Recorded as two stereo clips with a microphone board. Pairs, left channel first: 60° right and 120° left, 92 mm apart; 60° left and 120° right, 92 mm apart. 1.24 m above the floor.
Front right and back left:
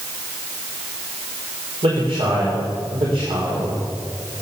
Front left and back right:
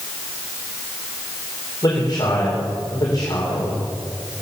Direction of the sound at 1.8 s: 105° left.